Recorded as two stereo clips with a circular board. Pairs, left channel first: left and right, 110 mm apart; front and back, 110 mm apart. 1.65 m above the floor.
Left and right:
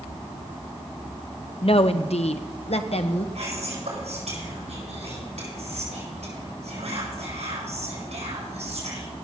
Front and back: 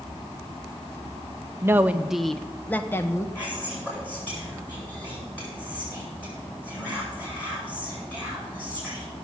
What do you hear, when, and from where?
1.6 s a woman speaking: 115° left, 0.7 m; by 3.2 s 65° left, 1.1 m
3.4 s whispering: 75° right, 7 m